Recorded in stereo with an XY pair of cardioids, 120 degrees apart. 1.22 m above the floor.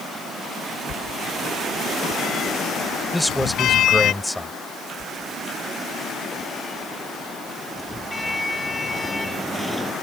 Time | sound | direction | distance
0.9 | a sliding door | 60° left | ?
3.1 | a man speaking | straight ahead | ?
5.0 | a sliding door | 10° left | ?